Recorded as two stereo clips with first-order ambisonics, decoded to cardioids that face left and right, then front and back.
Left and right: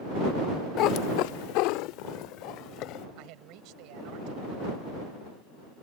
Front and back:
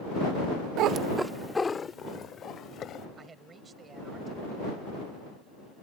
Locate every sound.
0.8 s a cat meowing: 140° left; by 3.0 s 55° left
3.2 s a man speaking: 110° right